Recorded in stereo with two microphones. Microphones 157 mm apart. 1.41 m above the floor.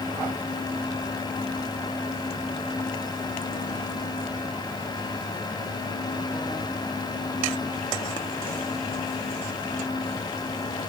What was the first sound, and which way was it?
Only background noise.